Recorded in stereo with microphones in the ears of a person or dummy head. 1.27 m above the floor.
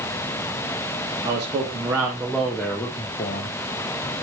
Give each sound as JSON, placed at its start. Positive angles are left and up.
{"t": 1.2, "sound": "a man speaking", "side_deg": -20, "distance_m": 1.9}